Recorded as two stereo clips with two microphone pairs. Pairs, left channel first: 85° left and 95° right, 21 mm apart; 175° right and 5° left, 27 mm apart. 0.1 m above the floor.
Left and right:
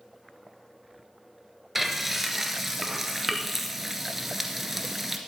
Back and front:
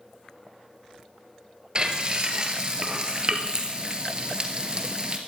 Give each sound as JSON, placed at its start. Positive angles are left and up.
{"t": 1.8, "sound": "frying", "azimuth_deg": -25, "distance_m": 1.5}